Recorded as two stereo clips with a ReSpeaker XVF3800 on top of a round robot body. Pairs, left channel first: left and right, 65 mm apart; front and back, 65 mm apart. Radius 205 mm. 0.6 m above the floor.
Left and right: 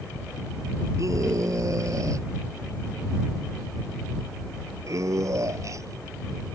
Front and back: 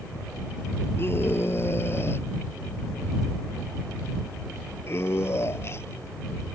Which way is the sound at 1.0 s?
55° right.